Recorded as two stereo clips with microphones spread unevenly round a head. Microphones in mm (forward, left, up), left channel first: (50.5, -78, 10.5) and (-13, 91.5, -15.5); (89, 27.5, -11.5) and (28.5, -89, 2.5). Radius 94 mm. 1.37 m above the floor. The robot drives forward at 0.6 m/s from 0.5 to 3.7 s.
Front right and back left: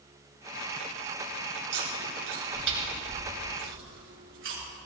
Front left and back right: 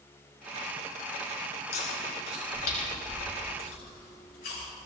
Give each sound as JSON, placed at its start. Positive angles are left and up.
{"t": 1.7, "sound": "chewing", "azimuth_deg": 85, "distance_m": 7.5}